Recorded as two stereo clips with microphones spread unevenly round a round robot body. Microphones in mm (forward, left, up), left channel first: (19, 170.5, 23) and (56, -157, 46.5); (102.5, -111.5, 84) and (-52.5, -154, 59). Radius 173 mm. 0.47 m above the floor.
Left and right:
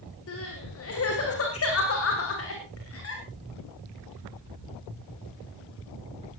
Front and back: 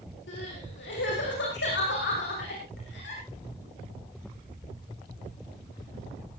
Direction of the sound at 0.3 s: 50° left.